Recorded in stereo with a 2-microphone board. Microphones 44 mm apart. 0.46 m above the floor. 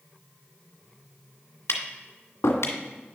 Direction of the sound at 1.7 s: 85° left.